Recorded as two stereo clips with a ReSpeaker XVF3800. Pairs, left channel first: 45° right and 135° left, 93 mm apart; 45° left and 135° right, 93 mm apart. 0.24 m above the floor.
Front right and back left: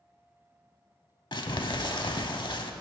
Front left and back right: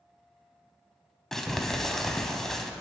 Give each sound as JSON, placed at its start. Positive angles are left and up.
{"t": 1.3, "sound": "crumpling", "azimuth_deg": -40, "distance_m": 0.6}